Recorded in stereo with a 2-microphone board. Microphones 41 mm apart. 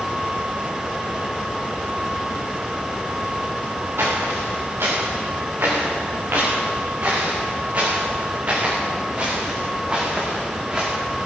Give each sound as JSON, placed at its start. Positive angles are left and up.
{"t": 4.0, "sound": "footsteps", "side_deg": -75, "distance_m": 6.5}